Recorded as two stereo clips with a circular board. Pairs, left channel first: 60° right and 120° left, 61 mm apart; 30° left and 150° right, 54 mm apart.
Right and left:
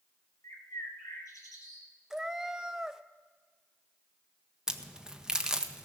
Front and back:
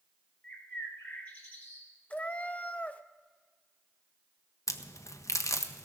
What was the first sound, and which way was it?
A bird, 35° right.